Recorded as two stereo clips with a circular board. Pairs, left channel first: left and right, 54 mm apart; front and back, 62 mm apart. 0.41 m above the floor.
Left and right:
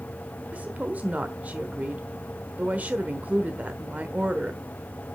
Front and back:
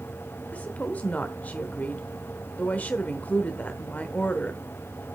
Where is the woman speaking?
50° right, 1.0 m.